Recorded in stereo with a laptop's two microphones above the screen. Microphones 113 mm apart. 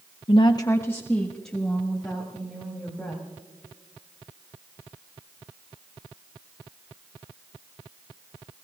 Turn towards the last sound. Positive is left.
turn(degrees=-5)  # may be behind; listen again after turning